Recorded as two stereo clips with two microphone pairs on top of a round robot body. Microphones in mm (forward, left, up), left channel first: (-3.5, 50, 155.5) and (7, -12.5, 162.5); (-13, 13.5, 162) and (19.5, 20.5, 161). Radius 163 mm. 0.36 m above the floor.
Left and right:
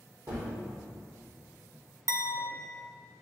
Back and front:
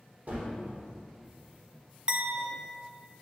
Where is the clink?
50° right, 1.1 m.